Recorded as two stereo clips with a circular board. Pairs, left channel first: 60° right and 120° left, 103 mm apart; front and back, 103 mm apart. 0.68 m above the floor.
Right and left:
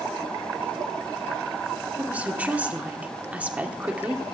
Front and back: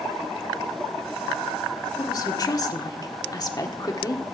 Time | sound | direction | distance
2.0 | a woman speaking | 45° left | 1.7 m